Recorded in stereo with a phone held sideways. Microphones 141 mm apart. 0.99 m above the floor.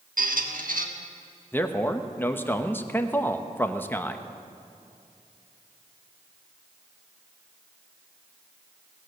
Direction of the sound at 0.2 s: 85° right.